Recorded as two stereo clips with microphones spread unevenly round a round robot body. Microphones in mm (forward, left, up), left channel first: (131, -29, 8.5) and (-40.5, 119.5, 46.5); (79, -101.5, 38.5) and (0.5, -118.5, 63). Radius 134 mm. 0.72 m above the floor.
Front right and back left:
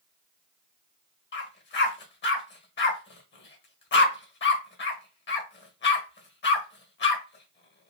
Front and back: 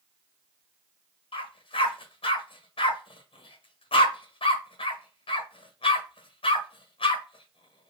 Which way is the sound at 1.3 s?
5° left.